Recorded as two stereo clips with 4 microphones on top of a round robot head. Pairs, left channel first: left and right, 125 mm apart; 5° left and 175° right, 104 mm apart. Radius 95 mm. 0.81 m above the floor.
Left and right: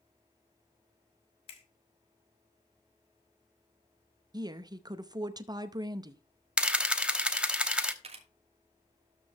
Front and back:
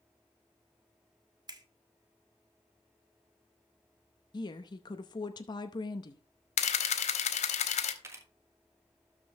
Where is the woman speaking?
35° right, 0.7 m.